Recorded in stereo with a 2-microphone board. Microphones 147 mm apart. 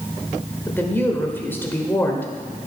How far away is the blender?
I don't hear a blender.